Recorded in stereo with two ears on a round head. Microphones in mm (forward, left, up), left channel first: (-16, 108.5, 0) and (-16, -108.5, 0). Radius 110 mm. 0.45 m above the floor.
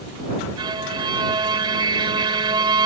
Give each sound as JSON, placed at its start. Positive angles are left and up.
{"t": 0.6, "sound": "a violin", "side_deg": -20}